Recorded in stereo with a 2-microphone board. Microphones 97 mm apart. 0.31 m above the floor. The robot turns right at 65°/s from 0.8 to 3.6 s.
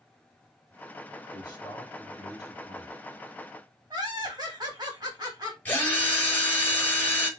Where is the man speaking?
50° left, 2.0 m; by 3.0 s 155° left, 2.0 m.